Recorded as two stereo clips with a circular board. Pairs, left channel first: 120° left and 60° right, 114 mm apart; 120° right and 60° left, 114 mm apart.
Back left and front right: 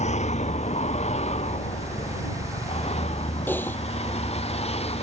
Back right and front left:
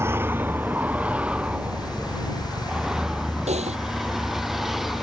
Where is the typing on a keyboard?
45° left.